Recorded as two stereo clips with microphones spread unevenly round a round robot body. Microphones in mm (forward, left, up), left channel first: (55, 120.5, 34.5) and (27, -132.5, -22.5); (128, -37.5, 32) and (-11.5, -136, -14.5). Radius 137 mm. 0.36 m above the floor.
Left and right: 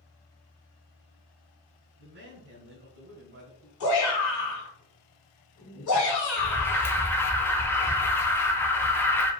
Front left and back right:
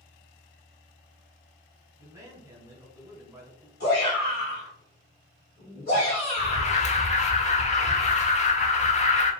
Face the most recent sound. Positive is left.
turn(degrees=-10)